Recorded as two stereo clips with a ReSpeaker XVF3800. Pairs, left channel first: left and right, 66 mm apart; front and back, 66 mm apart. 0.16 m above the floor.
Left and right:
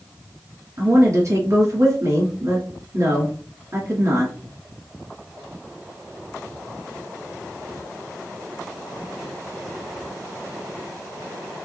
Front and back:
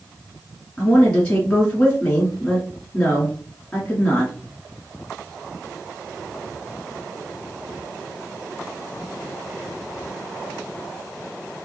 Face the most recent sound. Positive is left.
turn(degrees=-70)